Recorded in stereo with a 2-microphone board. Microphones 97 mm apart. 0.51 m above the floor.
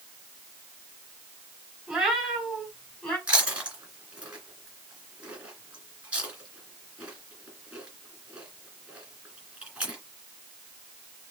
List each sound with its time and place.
1.9 s a cat meowing: 10° right (ahead or behind), 2 m; by 3.2 s 10° left (ahead or behind), 2.5 m
3.3 s chewing: 15° right (ahead or behind), 2.5 m